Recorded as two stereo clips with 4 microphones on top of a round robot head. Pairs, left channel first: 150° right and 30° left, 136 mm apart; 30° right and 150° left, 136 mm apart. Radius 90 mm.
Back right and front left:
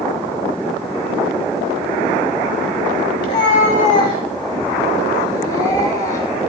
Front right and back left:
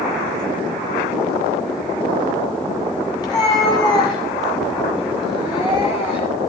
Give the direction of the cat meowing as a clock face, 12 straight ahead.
3 o'clock.